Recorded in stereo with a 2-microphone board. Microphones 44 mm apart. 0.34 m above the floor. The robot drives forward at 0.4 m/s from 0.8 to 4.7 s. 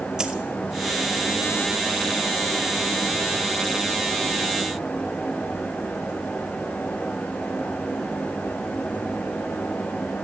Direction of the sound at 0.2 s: 15° right (ahead or behind).